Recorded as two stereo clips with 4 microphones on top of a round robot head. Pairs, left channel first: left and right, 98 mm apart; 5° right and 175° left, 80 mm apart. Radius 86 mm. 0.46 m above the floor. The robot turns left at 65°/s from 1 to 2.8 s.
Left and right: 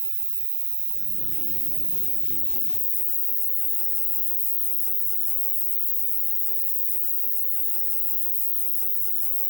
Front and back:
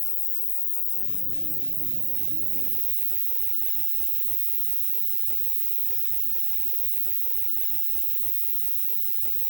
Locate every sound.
0.0 s an insect: 60° right, 0.8 m; by 9.5 s straight behind, 0.8 m